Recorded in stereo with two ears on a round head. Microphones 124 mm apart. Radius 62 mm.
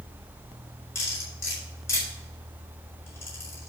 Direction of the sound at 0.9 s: 20° left (ahead or behind).